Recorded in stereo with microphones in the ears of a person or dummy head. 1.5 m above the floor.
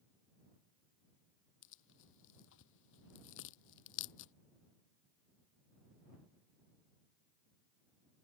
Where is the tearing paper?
65° left (ahead or behind).